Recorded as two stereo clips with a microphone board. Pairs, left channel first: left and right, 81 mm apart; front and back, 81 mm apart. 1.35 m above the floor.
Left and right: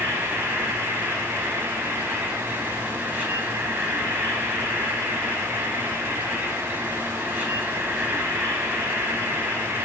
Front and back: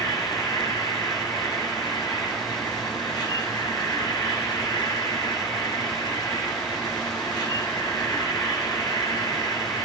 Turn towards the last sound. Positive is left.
turn(degrees=-25)